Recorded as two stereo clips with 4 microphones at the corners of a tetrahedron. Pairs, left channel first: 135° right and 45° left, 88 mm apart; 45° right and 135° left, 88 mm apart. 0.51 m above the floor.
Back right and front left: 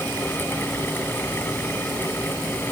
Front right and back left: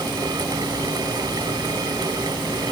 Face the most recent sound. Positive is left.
No sound to turn to.